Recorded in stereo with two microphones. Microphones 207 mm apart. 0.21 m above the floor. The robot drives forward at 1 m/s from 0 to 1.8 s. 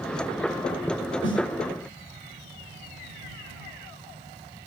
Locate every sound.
1.2 s a snare drum: 70° left (ahead or behind), 5.5 m